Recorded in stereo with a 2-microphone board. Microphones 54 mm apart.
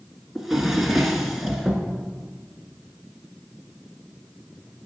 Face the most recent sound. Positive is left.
turn(degrees=-5)  # may be behind; listen again after turning